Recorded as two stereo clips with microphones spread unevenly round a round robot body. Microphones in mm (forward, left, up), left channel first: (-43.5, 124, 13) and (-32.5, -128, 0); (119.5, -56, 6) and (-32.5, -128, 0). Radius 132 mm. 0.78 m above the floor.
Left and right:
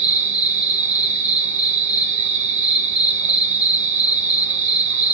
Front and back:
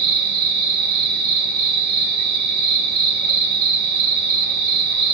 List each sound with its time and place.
0.0 s an insect: 150° right, 3 m